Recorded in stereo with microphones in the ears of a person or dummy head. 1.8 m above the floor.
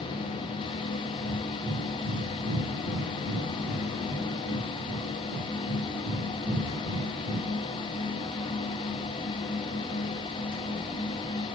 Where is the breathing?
60° right (ahead or behind), 4.5 m.